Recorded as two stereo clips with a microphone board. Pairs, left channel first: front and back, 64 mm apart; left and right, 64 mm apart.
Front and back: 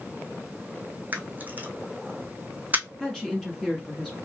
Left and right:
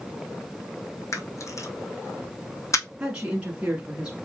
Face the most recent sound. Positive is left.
turn(degrees=-60)